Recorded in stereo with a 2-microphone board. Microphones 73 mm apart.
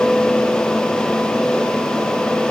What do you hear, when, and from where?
Only background noise.